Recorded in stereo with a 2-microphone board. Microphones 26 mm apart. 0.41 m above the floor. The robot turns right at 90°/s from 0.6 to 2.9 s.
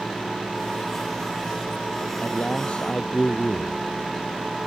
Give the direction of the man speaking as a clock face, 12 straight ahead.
9 o'clock.